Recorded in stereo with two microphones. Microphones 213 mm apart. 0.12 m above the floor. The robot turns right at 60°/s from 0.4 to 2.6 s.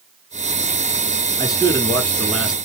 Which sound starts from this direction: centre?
A man speaking, at 1.4 s.